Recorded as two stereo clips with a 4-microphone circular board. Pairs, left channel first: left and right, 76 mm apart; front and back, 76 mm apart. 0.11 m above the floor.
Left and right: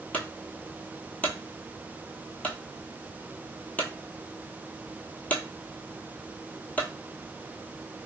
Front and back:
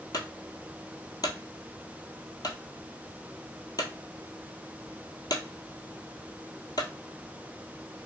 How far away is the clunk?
About 0.8 m.